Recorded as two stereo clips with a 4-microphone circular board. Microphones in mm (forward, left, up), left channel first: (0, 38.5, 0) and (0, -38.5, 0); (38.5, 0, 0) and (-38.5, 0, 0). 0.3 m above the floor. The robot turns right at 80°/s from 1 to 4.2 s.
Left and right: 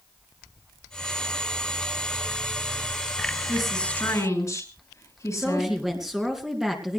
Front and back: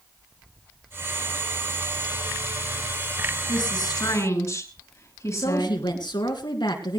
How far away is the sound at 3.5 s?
About 3.5 m.